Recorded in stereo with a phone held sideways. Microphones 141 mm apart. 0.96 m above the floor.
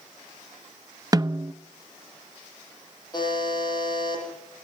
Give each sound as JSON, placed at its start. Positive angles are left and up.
{"t": 1.1, "sound": "a snare drum", "side_deg": -25, "distance_m": 0.6}
{"t": 3.1, "sound": "a buzzer", "side_deg": 30, "distance_m": 8.5}